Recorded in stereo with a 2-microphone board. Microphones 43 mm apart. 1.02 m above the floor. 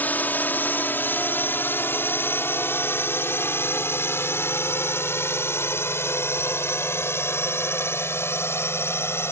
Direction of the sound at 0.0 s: 45° left (ahead or behind).